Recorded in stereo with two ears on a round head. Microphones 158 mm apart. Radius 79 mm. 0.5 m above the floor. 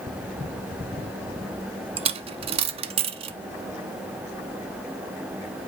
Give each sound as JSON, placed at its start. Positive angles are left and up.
{"t": 2.0, "sound": "a dropped coin", "side_deg": -35, "distance_m": 0.6}